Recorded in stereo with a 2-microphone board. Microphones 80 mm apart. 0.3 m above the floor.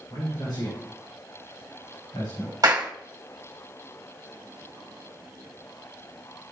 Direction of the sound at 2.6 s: 50° right (ahead or behind).